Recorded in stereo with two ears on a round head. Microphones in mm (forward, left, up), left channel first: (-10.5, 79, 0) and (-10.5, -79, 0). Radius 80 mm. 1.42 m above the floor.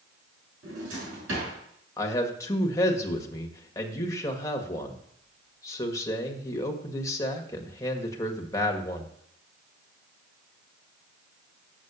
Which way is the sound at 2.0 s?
20° left (ahead or behind).